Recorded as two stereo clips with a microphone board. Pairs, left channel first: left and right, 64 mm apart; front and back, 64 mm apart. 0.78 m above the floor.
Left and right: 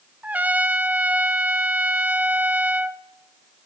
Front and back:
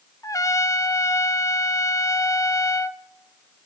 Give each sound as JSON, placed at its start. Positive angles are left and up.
{"t": 0.2, "sound": "a trumpet", "azimuth_deg": -25, "distance_m": 0.5}